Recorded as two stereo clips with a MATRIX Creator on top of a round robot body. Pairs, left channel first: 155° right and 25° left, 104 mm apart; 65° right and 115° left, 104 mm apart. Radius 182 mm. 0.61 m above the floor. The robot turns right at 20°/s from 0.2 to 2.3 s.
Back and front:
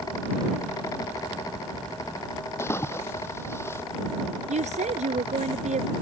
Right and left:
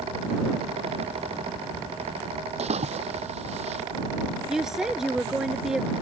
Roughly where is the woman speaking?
Ahead left.